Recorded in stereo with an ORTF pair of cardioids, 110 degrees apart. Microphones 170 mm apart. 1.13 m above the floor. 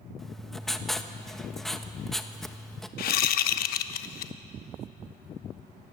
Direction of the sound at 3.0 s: 65° left.